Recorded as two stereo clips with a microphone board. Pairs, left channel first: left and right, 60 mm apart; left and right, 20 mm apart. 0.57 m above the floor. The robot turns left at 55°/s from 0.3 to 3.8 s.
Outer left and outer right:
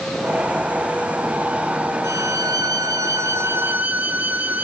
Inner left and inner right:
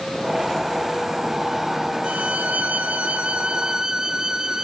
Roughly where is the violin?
Ahead right.